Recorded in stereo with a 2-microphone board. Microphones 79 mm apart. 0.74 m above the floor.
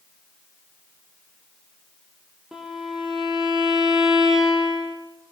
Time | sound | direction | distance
2.5 | a violin | 5° right (ahead or behind) | 4.5 m